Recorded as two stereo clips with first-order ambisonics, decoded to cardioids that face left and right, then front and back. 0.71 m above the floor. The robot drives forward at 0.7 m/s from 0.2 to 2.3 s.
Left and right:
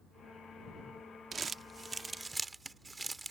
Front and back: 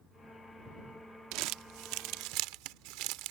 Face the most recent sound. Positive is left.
turn(degrees=-170)